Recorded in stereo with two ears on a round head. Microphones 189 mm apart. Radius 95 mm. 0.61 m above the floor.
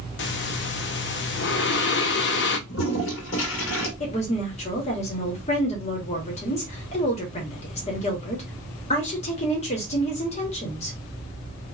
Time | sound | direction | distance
0.2 | breathing | 55° left (ahead or behind) | 0.7 m
2.7 | a toilet flushing | 65° left (ahead or behind) | 1.6 m
4.0 | a woman speaking | 30° left (ahead or behind) | 1.1 m